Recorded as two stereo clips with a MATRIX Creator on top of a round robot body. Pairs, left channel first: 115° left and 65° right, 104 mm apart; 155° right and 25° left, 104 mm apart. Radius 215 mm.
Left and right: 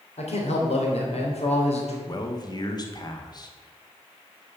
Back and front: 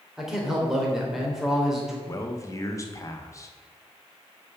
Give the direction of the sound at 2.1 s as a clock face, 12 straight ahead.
7 o'clock.